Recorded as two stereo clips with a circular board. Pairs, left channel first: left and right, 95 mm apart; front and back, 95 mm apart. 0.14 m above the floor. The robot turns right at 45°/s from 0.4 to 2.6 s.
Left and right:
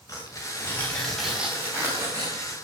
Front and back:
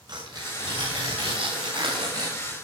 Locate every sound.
0.1 s tearing paper: 145° left, 8 m; by 2.5 s 120° right, 8 m